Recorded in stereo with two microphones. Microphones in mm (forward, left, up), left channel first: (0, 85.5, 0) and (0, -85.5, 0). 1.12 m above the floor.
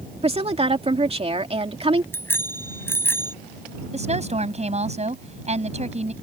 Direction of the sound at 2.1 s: 15° left (ahead or behind).